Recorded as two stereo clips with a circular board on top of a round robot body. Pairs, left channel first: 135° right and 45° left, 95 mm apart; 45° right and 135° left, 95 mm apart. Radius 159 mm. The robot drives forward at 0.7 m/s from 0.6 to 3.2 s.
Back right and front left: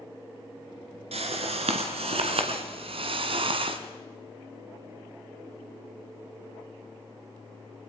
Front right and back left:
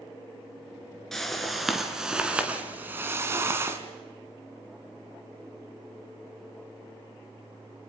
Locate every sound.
1.1 s a whoosh: 40° left, 3 m; by 3.8 s 70° left, 2 m